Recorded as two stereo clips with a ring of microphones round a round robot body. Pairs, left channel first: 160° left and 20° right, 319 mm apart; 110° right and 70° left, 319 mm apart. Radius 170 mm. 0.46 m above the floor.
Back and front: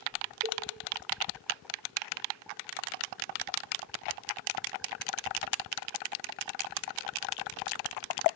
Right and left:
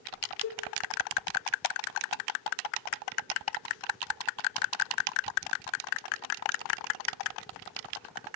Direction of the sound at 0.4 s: 85° right.